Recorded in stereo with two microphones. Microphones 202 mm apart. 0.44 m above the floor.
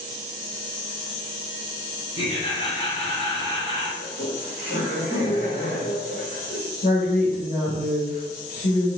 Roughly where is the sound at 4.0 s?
Left.